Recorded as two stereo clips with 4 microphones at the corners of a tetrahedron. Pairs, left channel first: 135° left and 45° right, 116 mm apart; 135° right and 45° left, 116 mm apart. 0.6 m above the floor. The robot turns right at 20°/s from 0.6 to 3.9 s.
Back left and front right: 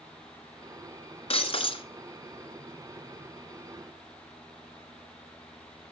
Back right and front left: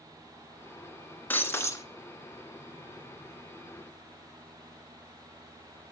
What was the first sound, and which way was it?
Breaking glass, 155° left.